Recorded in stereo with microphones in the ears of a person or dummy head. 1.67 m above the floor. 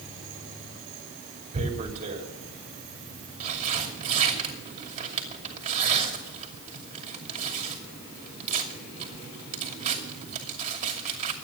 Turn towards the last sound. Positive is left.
turn(degrees=-45)  # may be behind; listen again after turning